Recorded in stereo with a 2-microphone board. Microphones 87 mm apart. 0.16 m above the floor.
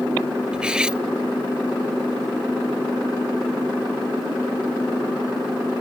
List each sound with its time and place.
0.5 s cutlery clinking: 10° right (ahead or behind)